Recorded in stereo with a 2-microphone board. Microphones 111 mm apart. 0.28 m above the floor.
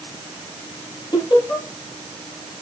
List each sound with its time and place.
1.1 s laughter: 40° left (ahead or behind), 7.5 m